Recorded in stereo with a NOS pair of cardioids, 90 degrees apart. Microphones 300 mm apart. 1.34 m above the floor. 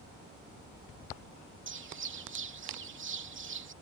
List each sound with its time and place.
1.7 s a bird: 40° right